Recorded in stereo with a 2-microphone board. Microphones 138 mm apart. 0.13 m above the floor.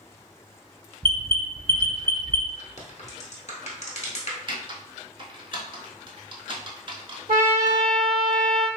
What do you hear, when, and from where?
1.0 s an alarm: 40° right (ahead or behind), 1.5 m
2.8 s a crack: 55° left (ahead or behind), 0.9 m
4.5 s typing on a keyboard: 40° right (ahead or behind), 0.7 m
7.3 s a trumpet: 80° right, 0.8 m